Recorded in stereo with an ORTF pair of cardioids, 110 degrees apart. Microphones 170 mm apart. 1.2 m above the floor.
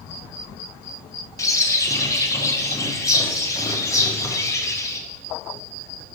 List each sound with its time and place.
1.4 s a bird: 20° left, 0.6 m